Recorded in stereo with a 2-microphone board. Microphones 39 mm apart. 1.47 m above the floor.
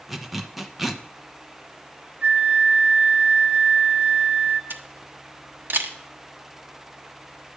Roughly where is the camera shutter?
Right.